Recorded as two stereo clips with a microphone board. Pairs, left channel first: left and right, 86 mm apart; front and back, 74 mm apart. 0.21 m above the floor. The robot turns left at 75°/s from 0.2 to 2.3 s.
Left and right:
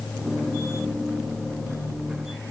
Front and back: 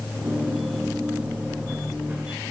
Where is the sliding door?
No sliding door in this recording.